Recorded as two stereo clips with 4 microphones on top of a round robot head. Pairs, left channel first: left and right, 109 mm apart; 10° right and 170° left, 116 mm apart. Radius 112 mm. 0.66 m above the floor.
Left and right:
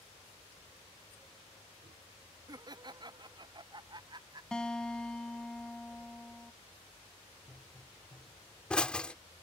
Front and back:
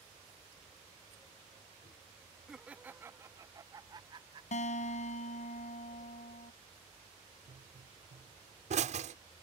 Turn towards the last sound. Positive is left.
turn(degrees=170)